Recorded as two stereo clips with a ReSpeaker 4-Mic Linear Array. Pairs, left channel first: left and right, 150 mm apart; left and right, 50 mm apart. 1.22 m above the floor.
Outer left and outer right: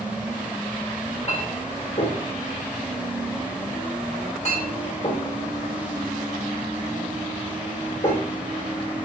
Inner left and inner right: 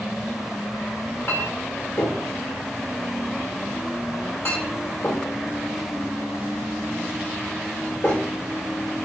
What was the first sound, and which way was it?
A clink, 50° left (ahead or behind).